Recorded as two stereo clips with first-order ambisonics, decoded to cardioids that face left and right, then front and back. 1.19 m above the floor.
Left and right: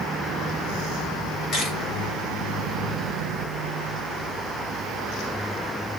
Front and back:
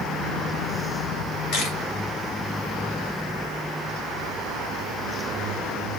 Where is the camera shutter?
30° left, 2.5 m.